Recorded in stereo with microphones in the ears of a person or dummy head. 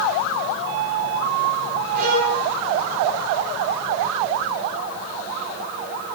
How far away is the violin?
About 8 m.